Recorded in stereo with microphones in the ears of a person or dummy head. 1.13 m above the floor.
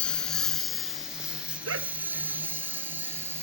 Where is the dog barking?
80° right.